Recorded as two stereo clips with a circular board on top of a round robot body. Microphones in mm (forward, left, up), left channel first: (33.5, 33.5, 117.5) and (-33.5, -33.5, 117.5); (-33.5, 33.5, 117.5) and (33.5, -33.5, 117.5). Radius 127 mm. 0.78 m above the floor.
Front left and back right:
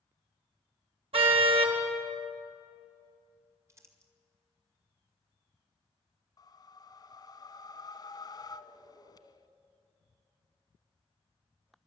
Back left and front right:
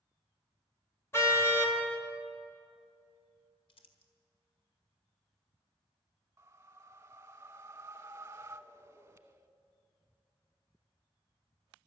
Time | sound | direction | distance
1.1 | a car horn | 160° right | 2.5 m
3.7 | crumpling | 165° left | 1.9 m
6.4 | a whoosh | 15° left | 1.1 m